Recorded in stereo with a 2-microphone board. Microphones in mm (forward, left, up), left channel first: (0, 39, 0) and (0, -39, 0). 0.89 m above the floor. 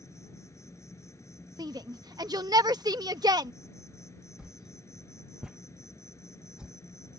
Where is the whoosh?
10° right (ahead or behind).